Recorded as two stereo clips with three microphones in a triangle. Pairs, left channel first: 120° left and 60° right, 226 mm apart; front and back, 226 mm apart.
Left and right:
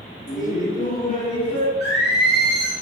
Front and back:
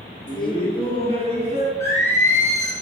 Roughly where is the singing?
Left.